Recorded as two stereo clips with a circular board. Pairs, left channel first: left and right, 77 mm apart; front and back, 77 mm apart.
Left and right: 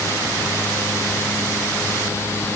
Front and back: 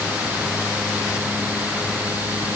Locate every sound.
Only background noise.